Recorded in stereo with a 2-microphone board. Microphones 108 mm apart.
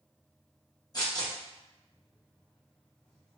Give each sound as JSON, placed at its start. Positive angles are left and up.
{"t": 0.9, "sound": "tearing paper", "side_deg": 35, "distance_m": 0.8}